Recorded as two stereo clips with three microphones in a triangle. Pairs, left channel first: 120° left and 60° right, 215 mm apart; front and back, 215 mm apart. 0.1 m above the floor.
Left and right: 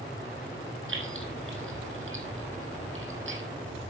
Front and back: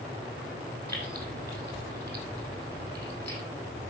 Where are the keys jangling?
80° right, 2.5 m.